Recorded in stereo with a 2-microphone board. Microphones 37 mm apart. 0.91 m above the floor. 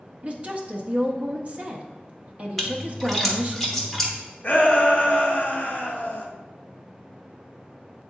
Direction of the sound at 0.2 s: 40° right (ahead or behind).